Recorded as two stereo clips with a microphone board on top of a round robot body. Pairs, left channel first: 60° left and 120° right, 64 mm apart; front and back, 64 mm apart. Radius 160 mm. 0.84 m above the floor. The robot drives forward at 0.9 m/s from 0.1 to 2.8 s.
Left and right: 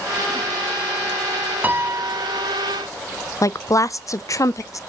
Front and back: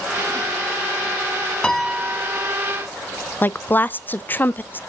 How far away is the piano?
About 0.7 m.